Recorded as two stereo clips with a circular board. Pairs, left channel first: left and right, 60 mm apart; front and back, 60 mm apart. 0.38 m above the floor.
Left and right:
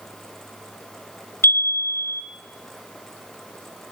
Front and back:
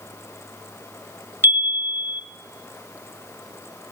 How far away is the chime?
About 0.6 m.